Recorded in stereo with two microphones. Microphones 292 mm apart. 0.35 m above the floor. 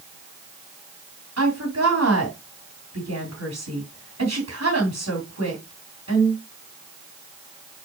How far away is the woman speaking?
About 3 m.